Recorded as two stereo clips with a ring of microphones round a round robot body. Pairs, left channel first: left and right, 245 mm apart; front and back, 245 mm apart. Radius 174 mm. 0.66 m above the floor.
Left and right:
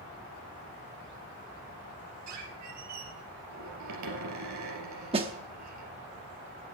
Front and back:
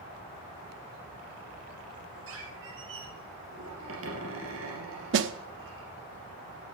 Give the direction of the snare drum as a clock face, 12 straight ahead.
5 o'clock.